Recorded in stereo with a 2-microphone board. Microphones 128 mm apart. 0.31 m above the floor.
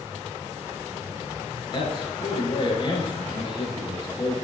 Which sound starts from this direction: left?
A man speaking, at 1.7 s.